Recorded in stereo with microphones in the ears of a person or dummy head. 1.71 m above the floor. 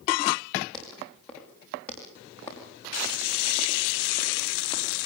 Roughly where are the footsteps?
Centre.